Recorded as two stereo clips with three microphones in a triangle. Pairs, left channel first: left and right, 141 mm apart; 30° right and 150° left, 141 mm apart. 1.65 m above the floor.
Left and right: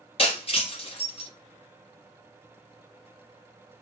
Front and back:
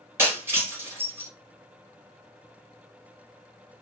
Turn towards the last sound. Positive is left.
turn(degrees=85)